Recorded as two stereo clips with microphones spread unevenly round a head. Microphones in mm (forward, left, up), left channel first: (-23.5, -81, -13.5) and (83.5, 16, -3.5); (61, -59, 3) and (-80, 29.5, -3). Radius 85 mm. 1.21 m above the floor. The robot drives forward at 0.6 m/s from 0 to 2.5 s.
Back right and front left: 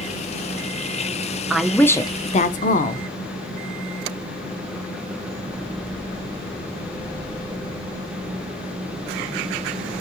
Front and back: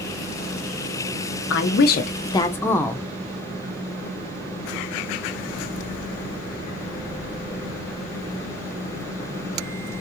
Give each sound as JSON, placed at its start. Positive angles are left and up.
{"t": 1.5, "sound": "a woman speaking", "azimuth_deg": -45, "distance_m": 0.7}